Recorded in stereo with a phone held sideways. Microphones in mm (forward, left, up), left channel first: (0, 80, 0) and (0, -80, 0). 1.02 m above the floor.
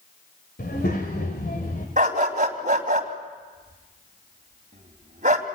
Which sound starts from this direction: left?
A child speaking, at 0.6 s.